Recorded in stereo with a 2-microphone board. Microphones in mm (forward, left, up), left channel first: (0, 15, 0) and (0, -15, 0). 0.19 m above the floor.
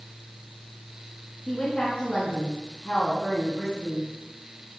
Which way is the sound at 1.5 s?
45° left (ahead or behind).